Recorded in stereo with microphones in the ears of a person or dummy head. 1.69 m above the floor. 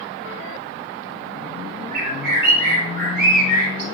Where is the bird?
55° right (ahead or behind), 4.5 m.